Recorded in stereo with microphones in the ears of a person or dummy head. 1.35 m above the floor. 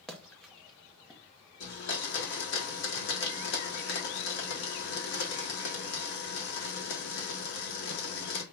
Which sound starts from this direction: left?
A blender, at 1.6 s.